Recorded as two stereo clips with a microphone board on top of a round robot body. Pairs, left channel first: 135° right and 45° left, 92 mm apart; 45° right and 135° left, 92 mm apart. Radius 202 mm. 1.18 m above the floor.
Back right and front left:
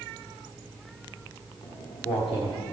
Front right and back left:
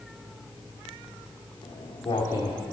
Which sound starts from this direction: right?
Footsteps, at 1.6 s.